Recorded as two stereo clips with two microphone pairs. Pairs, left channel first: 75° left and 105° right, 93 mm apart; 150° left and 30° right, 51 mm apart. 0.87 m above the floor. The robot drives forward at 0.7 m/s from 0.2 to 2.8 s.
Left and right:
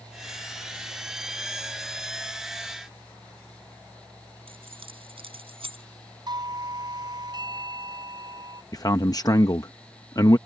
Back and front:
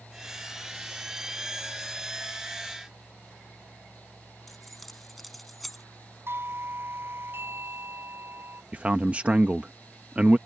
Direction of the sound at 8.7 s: 35° left.